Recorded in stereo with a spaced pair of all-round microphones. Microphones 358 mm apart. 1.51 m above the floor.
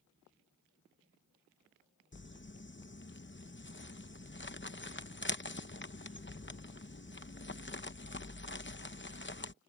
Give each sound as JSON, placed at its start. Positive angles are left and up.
{"t": 2.1, "sound": "crumpling", "side_deg": 30}